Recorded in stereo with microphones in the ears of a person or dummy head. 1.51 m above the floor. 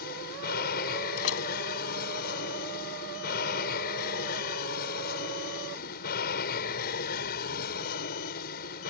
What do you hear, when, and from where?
0.0 s an aircraft: 55° left (ahead or behind)
1.2 s a door slam: 80° left